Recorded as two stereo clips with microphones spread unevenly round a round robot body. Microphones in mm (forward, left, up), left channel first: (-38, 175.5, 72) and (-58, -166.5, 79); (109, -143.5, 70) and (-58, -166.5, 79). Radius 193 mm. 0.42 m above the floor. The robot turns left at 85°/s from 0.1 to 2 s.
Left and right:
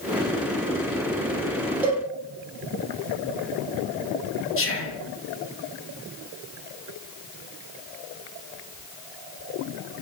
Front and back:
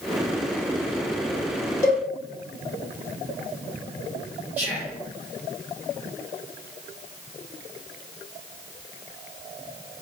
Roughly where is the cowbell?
Ahead.